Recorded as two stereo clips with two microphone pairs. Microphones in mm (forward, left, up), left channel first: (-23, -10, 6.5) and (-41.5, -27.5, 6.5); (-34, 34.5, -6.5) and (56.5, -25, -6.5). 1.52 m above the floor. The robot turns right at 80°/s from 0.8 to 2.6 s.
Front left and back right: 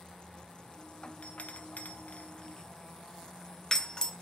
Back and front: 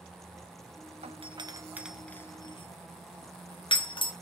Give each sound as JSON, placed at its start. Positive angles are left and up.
{"t": 1.0, "sound": "a doorbell", "azimuth_deg": -15, "distance_m": 0.8}